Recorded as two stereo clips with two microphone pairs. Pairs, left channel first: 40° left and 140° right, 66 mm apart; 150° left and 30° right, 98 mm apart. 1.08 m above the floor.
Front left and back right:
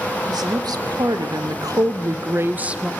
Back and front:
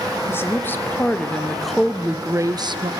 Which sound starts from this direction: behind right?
A woman speaking, at 0.3 s.